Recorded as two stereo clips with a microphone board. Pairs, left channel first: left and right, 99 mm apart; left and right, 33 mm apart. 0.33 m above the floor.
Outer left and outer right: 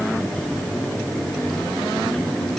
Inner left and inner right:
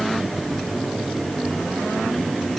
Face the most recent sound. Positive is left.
No sound to turn to.